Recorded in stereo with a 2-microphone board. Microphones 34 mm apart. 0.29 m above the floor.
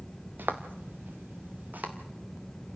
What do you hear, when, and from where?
0.4 s footsteps: 70° right (ahead or behind), 1.7 m; by 1.9 s 55° right (ahead or behind), 2.5 m